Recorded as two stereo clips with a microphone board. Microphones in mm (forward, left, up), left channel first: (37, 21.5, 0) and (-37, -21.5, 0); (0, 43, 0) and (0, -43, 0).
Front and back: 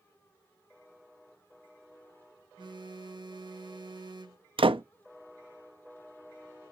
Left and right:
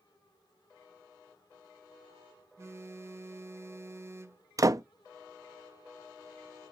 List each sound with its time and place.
2.6 s a phone buzzing: 140° right, 0.7 m
4.6 s a door slam: 140° right, 0.6 m